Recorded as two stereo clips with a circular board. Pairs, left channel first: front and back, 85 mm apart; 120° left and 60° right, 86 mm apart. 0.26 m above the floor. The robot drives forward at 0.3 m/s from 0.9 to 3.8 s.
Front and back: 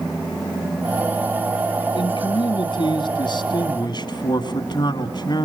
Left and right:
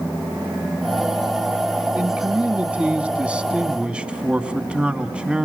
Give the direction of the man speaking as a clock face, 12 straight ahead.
12 o'clock.